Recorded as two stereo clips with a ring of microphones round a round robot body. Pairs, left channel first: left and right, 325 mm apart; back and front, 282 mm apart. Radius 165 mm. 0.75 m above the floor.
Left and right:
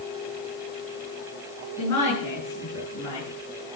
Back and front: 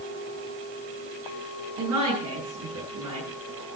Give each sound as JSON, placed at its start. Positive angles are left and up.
{"t": 1.8, "sound": "a woman speaking", "azimuth_deg": 10, "distance_m": 9.5}